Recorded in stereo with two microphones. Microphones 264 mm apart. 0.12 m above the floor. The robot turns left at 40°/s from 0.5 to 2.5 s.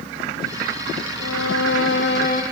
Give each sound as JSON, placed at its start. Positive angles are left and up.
{"t": 1.2, "sound": "a violin", "azimuth_deg": 80, "distance_m": 1.8}